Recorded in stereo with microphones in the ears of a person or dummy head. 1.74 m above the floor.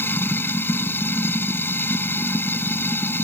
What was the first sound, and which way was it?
Running water, 15° left (ahead or behind).